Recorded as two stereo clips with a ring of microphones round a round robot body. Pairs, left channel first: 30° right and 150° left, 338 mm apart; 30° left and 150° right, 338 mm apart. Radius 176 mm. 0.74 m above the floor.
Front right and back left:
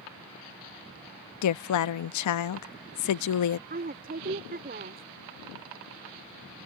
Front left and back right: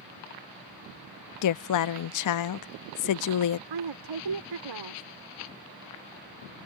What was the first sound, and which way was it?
A woman speaking, 5° left.